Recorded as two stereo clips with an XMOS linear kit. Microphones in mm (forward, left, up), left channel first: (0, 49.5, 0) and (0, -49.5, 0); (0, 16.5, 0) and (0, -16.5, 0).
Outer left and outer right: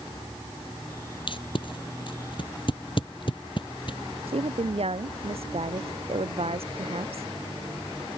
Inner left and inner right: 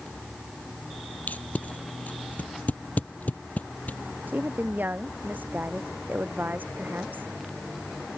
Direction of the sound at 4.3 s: 80° right.